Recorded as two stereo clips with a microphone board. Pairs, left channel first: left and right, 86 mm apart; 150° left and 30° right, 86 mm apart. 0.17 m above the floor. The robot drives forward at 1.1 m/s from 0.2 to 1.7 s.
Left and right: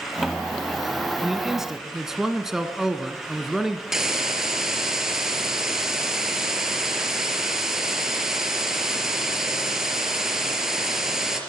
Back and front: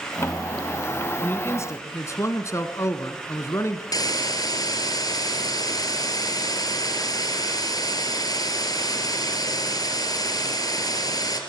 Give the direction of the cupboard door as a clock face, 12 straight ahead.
I don't hear a cupboard door.